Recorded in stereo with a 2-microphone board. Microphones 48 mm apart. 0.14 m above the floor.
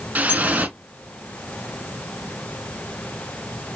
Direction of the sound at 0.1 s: 35° right (ahead or behind).